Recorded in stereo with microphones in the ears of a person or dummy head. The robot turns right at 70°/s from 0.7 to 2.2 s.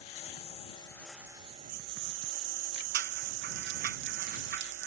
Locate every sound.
0.0 s a lawn mower: 35° left (ahead or behind); by 4.9 s 85° right
2.9 s a rattle: 55° right (ahead or behind)